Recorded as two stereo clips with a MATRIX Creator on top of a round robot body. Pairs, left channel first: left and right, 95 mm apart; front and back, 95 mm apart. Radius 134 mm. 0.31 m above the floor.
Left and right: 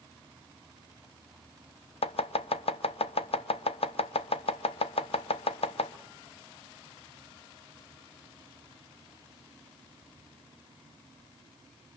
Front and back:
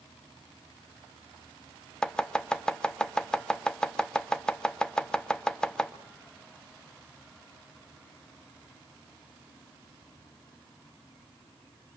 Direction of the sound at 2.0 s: 80° left.